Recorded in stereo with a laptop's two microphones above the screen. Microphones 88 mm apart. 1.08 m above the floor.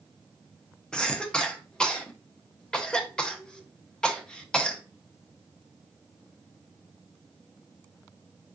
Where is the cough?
10° left (ahead or behind), 0.5 m.